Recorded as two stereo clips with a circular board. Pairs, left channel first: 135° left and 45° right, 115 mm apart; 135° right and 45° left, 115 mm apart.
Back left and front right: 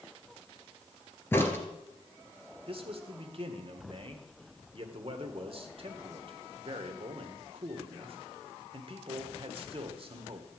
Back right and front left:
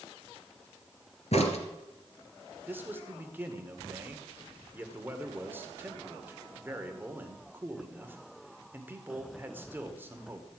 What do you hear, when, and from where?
1.3 s a crack: 155° right, 2 m
2.7 s a man speaking: 25° right, 1.7 m